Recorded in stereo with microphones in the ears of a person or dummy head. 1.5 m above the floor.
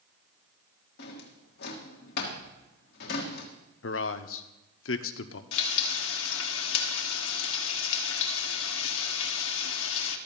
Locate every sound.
1.0 s a drawer: 60° left (ahead or behind), 1.5 m
3.8 s a man speaking: 75° left (ahead or behind), 0.8 m
5.5 s frying: 85° left, 1.1 m